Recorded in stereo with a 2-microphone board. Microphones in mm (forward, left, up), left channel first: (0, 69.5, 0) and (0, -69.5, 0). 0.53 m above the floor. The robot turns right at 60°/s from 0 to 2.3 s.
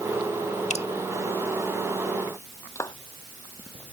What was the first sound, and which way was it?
Dripping, 55° left (ahead or behind).